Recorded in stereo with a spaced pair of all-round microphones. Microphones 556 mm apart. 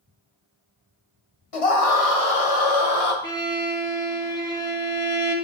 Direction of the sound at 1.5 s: 75° left (ahead or behind).